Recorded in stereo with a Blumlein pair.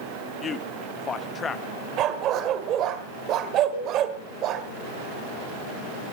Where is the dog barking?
35° right, 1.7 m.